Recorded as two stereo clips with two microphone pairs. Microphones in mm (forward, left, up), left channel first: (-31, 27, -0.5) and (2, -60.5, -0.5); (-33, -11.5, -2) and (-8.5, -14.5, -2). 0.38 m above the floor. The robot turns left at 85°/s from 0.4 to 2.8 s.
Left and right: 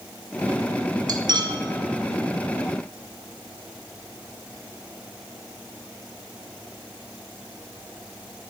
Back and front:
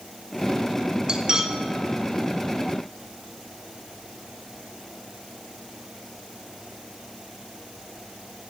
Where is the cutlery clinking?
50° right, 0.6 m; by 1.6 s 90° right, 0.6 m.